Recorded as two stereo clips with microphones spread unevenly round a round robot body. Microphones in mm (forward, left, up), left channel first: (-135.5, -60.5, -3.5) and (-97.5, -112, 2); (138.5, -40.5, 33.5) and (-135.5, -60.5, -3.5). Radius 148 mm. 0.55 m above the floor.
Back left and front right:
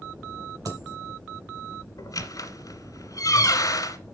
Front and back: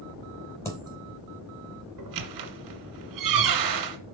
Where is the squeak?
155° left, 1.7 m.